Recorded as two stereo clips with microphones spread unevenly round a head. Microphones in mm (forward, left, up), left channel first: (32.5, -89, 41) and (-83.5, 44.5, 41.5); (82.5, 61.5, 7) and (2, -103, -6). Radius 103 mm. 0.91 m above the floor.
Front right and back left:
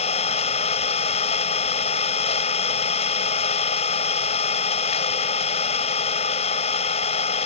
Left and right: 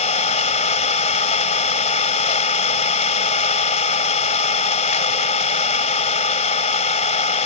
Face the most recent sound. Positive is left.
turn(degrees=10)